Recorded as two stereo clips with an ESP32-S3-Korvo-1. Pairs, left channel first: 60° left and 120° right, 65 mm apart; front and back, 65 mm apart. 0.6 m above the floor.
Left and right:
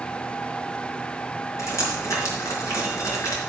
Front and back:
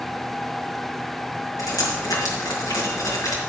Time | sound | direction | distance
1.6 | dripping | 25° left | 4.5 m